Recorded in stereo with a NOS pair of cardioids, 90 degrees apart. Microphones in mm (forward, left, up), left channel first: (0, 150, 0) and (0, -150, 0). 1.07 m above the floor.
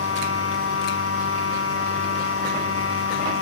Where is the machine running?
45° left, 4.5 m.